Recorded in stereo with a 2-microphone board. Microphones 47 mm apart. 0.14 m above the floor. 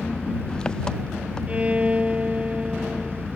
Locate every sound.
0.0 s an engine running: 15° left (ahead or behind)
1.5 s a violin: 25° right (ahead or behind)